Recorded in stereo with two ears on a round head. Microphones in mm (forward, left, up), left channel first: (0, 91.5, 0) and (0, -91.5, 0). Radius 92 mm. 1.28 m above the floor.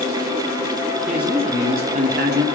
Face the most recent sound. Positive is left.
turn(degrees=-65)  # may be behind; listen again after turning